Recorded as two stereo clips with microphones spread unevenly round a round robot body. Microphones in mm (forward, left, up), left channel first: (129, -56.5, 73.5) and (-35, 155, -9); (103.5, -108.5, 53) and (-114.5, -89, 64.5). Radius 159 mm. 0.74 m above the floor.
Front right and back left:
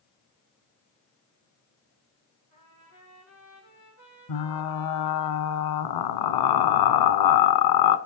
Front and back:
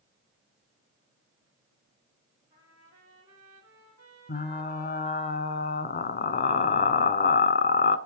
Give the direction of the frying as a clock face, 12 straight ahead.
2 o'clock.